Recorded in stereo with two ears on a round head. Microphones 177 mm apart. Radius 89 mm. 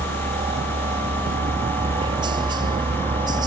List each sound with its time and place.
0.0 s a helicopter: 25° right (ahead or behind); by 3.5 s 20° right (ahead or behind)